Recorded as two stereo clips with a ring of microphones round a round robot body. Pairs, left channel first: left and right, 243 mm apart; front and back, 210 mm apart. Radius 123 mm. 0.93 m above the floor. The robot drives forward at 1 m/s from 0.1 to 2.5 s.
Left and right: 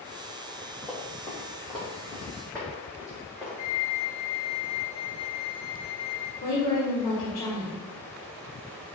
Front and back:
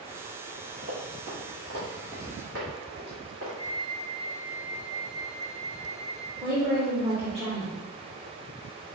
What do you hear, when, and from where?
0.8 s running footsteps: 170° left, 1.9 m; by 3.5 s 175° right, 2 m
3.6 s a flute: 75° left, 0.9 m
6.4 s a woman speaking: 120° left, 1.1 m